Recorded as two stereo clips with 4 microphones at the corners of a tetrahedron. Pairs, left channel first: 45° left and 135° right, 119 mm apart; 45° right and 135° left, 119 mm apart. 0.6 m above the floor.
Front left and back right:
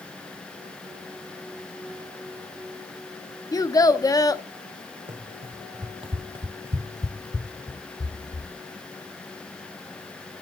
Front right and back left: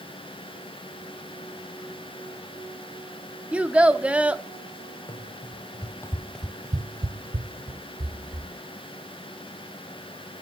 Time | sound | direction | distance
3.5 | a child speaking | 65° left | 0.7 m
5.1 | running footsteps | 95° right | 2 m